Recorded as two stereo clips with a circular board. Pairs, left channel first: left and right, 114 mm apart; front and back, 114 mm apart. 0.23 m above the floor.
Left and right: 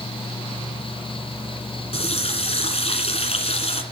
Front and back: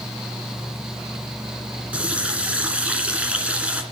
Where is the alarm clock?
No alarm clock in this recording.